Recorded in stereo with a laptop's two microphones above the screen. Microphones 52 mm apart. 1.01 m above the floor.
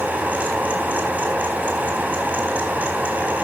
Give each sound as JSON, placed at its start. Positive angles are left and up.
{"t": 0.0, "sound": "a fan", "side_deg": -35, "distance_m": 4.0}